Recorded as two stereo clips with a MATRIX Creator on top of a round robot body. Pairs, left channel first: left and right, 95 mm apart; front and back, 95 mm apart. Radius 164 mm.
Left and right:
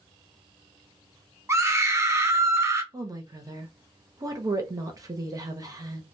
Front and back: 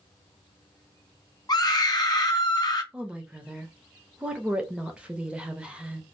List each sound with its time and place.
1.5 s a scream: 35° right, 0.9 m
2.9 s a woman speaking: 110° right, 0.9 m